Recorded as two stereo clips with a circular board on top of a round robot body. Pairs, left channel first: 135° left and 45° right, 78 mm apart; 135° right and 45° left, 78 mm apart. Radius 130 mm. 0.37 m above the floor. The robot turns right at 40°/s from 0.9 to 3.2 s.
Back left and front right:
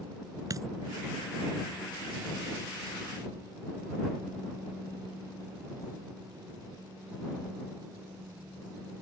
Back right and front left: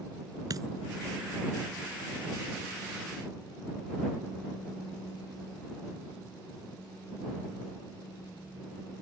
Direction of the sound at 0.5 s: Straight ahead.